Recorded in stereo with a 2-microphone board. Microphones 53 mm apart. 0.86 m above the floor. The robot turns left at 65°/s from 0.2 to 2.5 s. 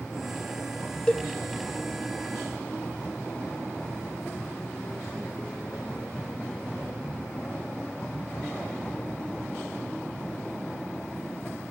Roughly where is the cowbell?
Centre.